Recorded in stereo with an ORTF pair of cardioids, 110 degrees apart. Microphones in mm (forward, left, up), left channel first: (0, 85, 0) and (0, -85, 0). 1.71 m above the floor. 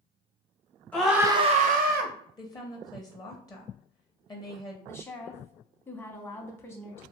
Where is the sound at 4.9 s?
15° left, 0.8 m.